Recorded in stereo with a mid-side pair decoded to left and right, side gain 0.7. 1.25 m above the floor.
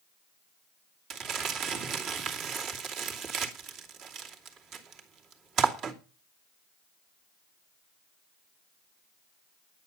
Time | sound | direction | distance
1.1 | crumpling | 50° right | 2.5 m